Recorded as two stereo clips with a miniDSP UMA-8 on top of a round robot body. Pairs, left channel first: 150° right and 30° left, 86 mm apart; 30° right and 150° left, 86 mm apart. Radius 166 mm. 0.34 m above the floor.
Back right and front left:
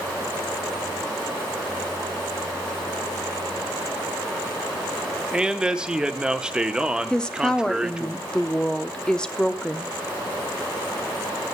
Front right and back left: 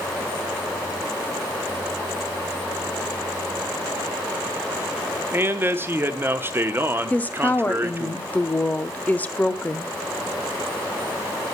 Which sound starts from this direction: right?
A woman speaking, at 7.1 s.